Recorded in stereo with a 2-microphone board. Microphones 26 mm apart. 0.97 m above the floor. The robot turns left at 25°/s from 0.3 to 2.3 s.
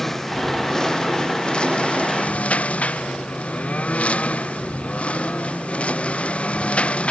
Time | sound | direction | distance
0.0 | a lawn mower | 15° left (ahead or behind) | ?